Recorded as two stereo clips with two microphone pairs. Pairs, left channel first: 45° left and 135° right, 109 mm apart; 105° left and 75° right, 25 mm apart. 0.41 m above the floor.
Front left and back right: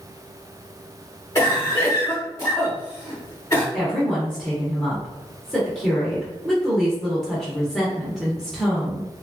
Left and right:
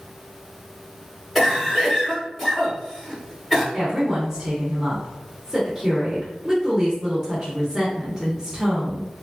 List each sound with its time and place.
1.4 s a cough: 5° left, 1.0 m
3.7 s a woman speaking: 40° right, 0.8 m